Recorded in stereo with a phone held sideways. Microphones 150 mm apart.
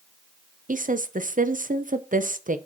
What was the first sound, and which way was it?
A woman speaking, 60° right (ahead or behind).